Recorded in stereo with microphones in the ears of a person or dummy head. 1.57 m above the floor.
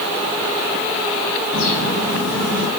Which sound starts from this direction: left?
A bird, at 1.5 s.